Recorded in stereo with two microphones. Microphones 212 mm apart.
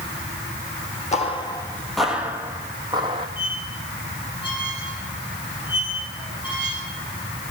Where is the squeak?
20° left (ahead or behind), 4.5 m.